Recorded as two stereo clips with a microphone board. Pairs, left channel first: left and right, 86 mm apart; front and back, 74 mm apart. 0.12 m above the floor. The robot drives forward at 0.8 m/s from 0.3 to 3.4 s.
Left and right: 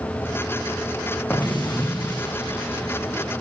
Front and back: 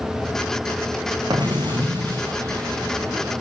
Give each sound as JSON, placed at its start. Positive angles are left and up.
{"t": 1.3, "sound": "an explosion", "azimuth_deg": 160, "distance_m": 3.5}